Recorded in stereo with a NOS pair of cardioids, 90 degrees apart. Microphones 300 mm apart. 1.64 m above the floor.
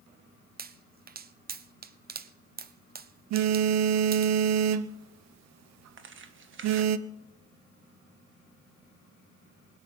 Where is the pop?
30° right, 0.8 m.